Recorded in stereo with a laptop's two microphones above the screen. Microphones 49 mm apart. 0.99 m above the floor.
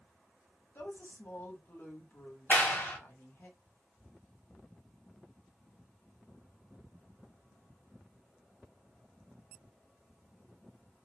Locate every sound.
0.8 s a woman speaking: 55° left (ahead or behind), 1.7 m
2.5 s a clap: 40° left (ahead or behind), 0.7 m